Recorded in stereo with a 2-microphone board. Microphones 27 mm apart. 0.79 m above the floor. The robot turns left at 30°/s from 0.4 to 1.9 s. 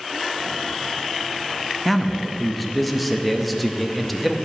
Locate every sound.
1.9 s a man speaking: centre (ahead or behind), 0.6 m